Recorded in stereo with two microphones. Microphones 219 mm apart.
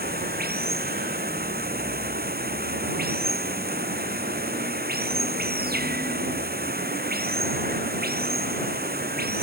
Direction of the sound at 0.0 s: 45° right (ahead or behind).